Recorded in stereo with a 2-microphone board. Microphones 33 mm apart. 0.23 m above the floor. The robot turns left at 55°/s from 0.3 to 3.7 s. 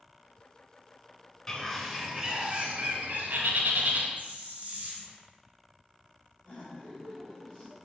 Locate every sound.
1.5 s a bird: 15° left, 0.9 m; by 4.1 s 105° right, 0.9 m
4.2 s a hiss: 50° right (ahead or behind), 1.5 m
6.4 s laughter: 40° left (ahead or behind), 1.7 m